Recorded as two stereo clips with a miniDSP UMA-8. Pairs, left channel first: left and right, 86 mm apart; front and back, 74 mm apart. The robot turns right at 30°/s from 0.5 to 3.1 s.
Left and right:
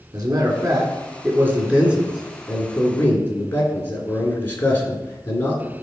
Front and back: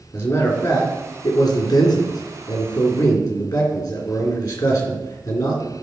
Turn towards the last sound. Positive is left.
turn(degrees=25)